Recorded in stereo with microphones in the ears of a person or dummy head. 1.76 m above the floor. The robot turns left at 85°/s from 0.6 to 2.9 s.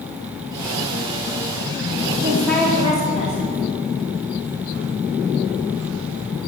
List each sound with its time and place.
2.2 s a woman speaking: 160° right, 4 m; by 3.4 s 145° left, 4 m